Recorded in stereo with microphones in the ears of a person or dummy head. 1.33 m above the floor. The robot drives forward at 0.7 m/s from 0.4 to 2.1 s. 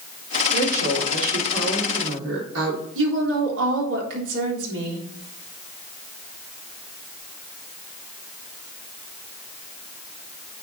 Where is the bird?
No bird in this recording.